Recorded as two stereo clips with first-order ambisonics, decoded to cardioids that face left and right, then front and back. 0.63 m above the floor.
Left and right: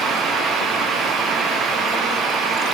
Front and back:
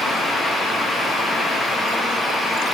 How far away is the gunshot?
No gunshot in this recording.